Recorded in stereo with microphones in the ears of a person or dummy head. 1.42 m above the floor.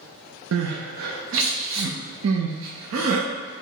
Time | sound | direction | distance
0.5 | crying | 70° right (ahead or behind) | 0.6 m